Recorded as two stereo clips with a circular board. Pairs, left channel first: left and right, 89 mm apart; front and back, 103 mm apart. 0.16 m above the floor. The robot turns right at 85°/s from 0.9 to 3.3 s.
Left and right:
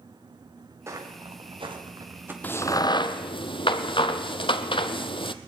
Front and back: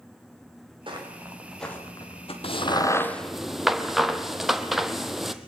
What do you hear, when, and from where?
0.9 s footsteps: 145° right, 5 m; by 2.3 s 20° right, 4 m
2.4 s a crack: 20° left, 1.2 m; by 5.3 s 90° left, 1.2 m